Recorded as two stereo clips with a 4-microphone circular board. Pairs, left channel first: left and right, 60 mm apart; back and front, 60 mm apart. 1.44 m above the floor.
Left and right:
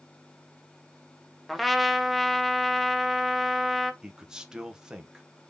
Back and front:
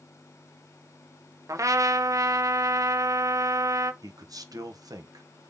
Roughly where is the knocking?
No knocking in this recording.